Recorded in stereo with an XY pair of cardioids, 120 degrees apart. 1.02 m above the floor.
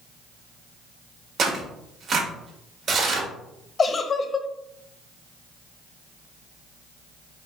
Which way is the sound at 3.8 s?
30° left.